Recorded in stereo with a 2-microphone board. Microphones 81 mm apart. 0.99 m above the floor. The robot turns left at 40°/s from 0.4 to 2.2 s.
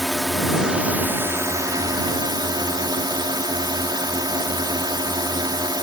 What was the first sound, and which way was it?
A drone, straight ahead.